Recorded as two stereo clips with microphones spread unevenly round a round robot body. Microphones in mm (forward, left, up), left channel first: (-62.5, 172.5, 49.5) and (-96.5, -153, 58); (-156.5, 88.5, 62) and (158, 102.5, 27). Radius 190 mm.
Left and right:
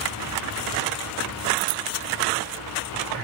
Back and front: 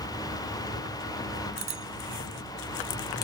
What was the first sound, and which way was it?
A bicycle bell, 70° right.